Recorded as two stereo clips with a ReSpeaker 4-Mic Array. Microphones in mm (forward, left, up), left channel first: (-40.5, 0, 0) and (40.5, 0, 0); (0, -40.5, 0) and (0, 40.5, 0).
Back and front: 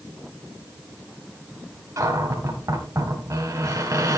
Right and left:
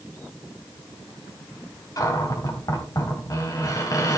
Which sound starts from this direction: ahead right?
A cupboard door, at 2.0 s.